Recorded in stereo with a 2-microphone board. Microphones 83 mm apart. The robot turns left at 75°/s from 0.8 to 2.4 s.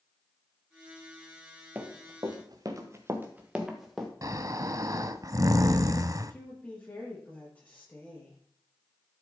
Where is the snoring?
45° right (ahead or behind), 0.5 m.